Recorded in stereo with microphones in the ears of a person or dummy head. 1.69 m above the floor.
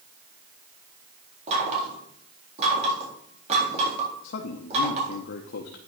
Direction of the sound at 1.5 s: 40° right (ahead or behind).